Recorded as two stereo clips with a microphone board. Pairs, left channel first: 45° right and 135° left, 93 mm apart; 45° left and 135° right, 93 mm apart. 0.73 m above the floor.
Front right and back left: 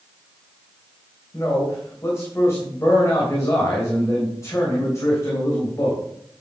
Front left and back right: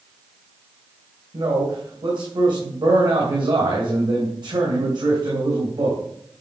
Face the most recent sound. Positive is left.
turn(degrees=-105)